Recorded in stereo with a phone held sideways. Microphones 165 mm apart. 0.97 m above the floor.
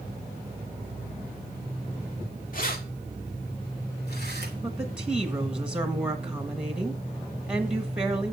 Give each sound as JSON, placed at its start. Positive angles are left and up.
{"t": 2.5, "sound": "keys jangling", "side_deg": 55, "distance_m": 2.0}
{"t": 4.6, "sound": "a woman speaking", "side_deg": -5, "distance_m": 1.5}